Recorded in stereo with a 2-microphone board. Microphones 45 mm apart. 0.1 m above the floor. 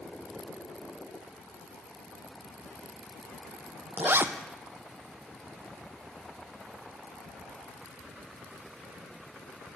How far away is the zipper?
About 0.7 m.